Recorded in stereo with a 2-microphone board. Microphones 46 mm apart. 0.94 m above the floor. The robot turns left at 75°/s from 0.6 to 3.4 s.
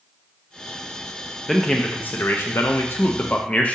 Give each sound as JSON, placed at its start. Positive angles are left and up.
{"t": 1.5, "sound": "a man speaking", "azimuth_deg": 175, "distance_m": 0.6}